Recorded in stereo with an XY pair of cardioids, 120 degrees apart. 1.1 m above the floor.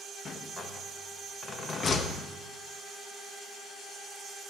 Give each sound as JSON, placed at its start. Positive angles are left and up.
{"t": 0.2, "sound": "a rattle", "azimuth_deg": 40, "distance_m": 1.1}